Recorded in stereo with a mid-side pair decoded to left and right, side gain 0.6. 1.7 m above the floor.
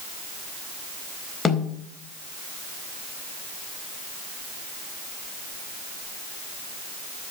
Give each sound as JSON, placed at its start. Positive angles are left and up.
{"t": 1.4, "sound": "a snare drum", "azimuth_deg": 30, "distance_m": 4.0}